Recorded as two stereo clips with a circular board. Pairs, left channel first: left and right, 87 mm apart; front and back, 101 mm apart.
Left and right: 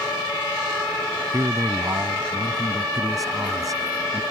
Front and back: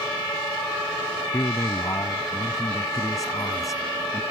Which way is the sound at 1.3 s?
50° right.